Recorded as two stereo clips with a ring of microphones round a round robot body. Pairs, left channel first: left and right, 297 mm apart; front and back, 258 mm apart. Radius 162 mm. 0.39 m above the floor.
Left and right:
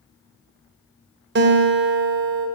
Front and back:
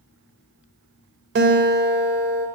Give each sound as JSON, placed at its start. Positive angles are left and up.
{"t": 1.4, "sound": "a guitar", "azimuth_deg": -135, "distance_m": 1.4}